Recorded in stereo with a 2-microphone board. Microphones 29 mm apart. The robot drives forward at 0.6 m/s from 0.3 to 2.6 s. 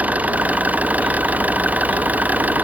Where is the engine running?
70° right (ahead or behind); by 2.6 s 85° right.